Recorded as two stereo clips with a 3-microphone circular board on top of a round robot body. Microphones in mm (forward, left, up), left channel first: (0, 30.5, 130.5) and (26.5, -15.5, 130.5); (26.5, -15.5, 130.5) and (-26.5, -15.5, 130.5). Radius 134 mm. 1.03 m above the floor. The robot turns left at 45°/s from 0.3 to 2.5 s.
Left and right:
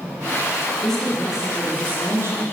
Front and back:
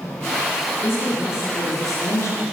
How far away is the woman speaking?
About 0.9 m.